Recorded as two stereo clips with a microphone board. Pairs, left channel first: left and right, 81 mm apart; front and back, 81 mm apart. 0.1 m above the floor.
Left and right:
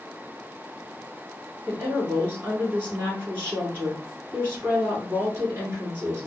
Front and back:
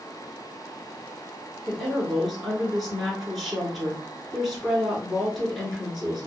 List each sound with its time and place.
1.7 s a woman speaking: 85° right, 1.2 m